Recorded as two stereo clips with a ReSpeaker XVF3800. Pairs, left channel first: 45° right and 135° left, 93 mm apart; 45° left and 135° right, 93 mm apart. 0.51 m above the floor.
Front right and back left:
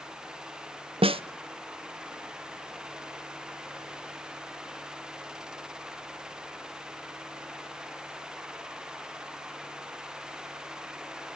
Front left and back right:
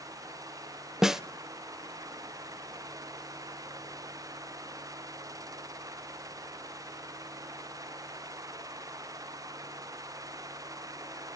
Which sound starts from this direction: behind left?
A snare drum, at 1.0 s.